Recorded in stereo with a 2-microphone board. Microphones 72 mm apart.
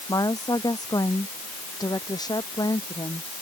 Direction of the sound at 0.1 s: 55° left (ahead or behind).